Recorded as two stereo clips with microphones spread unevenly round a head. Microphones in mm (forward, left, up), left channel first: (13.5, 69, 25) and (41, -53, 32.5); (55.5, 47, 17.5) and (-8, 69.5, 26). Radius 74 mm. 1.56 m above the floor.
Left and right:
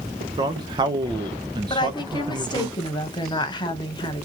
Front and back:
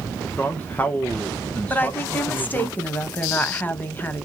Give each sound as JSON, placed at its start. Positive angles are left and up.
{"t": 0.4, "sound": "a man speaking", "azimuth_deg": -95, "distance_m": 0.5}
{"t": 1.7, "sound": "a woman speaking", "azimuth_deg": 45, "distance_m": 0.9}